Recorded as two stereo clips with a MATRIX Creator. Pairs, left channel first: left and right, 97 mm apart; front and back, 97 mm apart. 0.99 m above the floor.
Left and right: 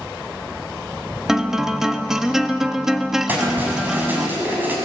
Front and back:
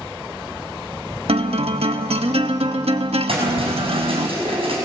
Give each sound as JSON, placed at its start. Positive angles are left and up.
{"t": 1.3, "sound": "a guitar", "azimuth_deg": -175, "distance_m": 1.1}
{"t": 3.3, "sound": "keys jangling", "azimuth_deg": -160, "distance_m": 6.5}